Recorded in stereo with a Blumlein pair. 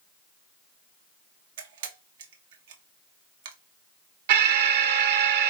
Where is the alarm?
50° right, 1.0 m.